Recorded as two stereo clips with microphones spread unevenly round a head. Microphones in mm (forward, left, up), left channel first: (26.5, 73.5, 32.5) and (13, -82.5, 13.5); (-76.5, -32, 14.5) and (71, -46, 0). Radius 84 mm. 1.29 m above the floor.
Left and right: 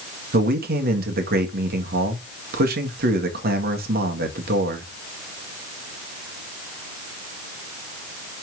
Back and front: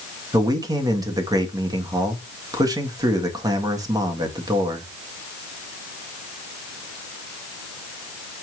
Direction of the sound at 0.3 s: 70° right.